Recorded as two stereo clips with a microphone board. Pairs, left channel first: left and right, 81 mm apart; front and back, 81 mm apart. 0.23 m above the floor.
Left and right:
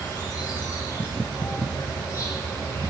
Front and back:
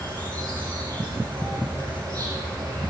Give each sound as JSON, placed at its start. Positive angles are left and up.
{"t": 0.0, "sound": "an insect", "azimuth_deg": 140, "distance_m": 4.0}